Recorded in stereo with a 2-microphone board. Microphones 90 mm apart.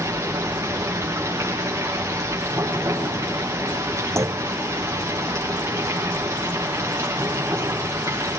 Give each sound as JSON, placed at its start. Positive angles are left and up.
{"t": 0.0, "sound": "running water", "side_deg": -30, "distance_m": 8.0}
{"t": 4.2, "sound": "a clunk", "side_deg": -35, "distance_m": 1.0}